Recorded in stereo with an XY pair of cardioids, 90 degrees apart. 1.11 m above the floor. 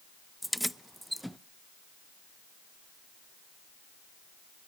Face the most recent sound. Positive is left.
turn(degrees=0)